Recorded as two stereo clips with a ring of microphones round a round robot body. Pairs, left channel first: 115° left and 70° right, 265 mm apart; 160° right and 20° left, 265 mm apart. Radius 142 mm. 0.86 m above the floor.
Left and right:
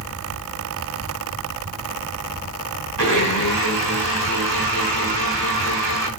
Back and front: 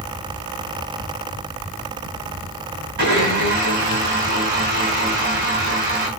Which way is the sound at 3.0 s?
35° right.